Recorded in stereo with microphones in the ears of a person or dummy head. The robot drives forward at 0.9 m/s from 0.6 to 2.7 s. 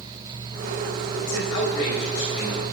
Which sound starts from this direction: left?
A man speaking, at 1.2 s.